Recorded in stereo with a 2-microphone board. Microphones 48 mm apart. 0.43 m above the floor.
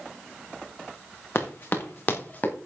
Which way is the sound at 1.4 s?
60° left (ahead or behind).